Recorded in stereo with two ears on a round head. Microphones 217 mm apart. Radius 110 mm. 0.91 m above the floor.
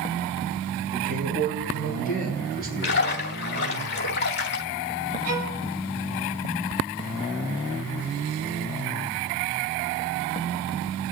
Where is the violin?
75° right (ahead or behind), 5.5 m.